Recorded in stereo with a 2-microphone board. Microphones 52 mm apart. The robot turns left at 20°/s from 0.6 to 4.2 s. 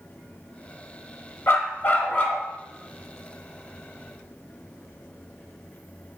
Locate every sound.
1.5 s a dog barking: 50° left (ahead or behind), 0.7 m; by 2.4 s 35° left (ahead or behind), 0.7 m